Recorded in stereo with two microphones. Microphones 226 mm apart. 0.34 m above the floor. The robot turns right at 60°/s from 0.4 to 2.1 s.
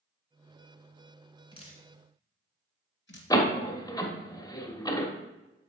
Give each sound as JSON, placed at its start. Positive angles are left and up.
{"t": 1.5, "sound": "dripping", "side_deg": 20, "distance_m": 1.8}
{"t": 3.3, "sound": "a door slam", "side_deg": 15, "distance_m": 1.1}